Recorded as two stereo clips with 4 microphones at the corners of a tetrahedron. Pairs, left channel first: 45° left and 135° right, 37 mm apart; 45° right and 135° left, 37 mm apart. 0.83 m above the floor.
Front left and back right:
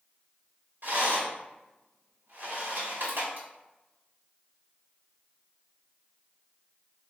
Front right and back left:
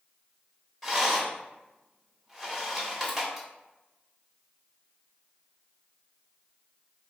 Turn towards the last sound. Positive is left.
turn(degrees=-130)